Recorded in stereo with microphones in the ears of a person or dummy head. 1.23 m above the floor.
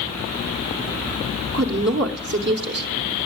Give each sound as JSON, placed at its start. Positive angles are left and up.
{"t": 1.5, "sound": "a woman speaking", "side_deg": -50, "distance_m": 0.9}